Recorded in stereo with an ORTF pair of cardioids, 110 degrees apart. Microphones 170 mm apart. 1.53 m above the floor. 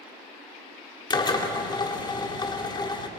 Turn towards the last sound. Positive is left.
turn(degrees=25)